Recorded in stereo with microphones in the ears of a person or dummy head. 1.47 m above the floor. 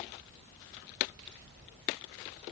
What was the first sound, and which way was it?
Only background noise.